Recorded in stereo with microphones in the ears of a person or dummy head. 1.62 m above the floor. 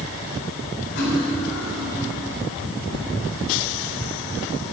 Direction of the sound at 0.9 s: 60° left (ahead or behind).